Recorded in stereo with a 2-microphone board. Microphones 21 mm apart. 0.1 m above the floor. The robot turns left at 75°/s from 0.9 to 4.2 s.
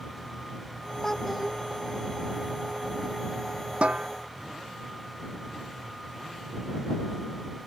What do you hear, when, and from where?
1.0 s a child speaking: 25° left; by 1.6 s 15° right
3.8 s a snare drum: 80° right; by 4.1 s 70° right (ahead or behind)